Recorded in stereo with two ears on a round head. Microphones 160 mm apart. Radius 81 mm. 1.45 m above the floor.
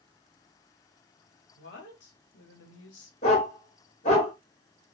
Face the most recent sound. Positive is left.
turn(degrees=40)  # may be behind; listen again after turning